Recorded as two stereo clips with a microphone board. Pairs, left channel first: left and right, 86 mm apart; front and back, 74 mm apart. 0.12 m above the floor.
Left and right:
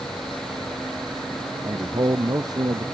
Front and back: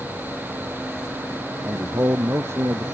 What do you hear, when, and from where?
1.6 s a man speaking: 130° right